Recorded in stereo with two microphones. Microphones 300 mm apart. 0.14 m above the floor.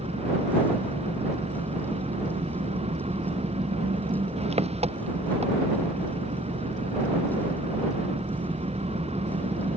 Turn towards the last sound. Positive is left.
turn(degrees=-20)  # may be behind; listen again after turning